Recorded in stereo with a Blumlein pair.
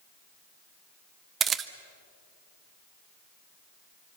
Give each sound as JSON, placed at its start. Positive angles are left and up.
{"t": 1.4, "sound": "a camera shutter", "azimuth_deg": -20, "distance_m": 1.1}